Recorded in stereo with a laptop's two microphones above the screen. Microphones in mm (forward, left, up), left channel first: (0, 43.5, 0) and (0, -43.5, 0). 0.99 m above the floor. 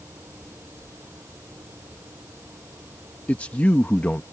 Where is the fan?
25° right (ahead or behind).